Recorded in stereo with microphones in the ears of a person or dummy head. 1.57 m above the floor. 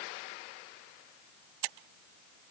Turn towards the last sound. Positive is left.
No sound to turn to.